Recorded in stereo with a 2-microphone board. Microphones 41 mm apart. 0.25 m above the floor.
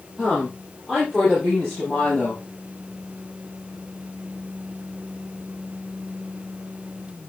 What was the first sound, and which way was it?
A woman speaking, 5° right (ahead or behind).